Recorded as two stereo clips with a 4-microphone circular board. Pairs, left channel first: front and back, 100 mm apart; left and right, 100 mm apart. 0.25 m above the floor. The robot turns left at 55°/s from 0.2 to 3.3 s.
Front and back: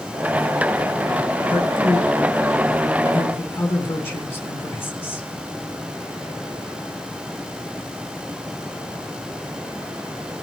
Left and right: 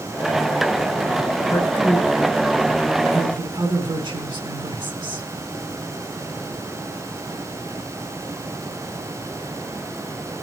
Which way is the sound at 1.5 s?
35° left.